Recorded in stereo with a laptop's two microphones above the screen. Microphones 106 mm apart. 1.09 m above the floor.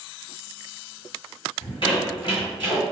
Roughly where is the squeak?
Left.